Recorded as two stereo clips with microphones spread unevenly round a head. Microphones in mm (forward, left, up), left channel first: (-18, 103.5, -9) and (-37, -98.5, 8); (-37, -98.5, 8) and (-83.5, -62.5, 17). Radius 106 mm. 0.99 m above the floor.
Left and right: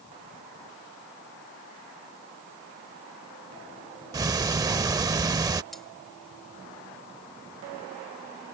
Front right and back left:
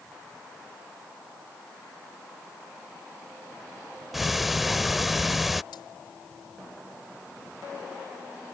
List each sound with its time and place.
4.1 s ticking: 145° right
5.7 s cutlery clinking: 5° right